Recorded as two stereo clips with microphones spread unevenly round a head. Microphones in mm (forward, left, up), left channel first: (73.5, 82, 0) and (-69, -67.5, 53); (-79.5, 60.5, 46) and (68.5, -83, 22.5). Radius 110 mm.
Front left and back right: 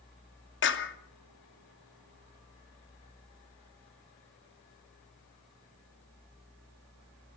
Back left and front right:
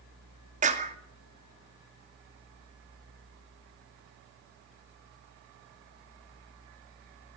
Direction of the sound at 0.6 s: 15° left.